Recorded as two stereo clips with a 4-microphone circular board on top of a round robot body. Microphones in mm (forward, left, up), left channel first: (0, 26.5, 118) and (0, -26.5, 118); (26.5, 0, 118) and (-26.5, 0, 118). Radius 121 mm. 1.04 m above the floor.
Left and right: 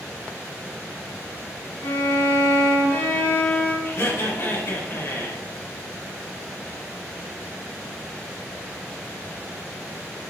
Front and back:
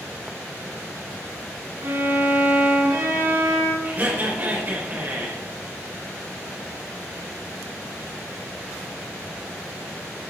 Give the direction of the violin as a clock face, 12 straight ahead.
8 o'clock.